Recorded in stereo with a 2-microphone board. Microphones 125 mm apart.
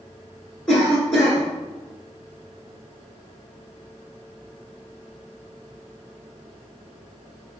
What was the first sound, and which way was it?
A cough, 5° left (ahead or behind).